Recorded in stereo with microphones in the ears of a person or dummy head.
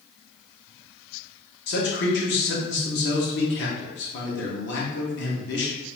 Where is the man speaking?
60° left (ahead or behind), 0.8 m.